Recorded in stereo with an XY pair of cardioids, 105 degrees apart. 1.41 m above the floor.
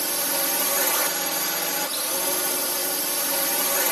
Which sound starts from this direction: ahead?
A drone, at 0.0 s.